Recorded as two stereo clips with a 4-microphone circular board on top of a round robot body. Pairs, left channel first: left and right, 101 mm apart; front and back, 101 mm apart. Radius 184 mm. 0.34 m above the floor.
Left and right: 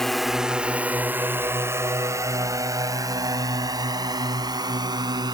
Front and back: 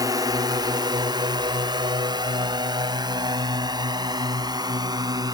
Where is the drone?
175° left; by 5.3 s 135° right.